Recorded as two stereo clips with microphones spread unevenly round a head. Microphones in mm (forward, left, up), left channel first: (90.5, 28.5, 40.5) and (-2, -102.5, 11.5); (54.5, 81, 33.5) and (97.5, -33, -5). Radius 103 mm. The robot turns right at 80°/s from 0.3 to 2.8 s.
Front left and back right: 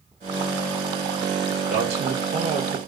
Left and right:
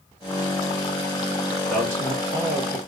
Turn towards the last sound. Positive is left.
turn(degrees=-70)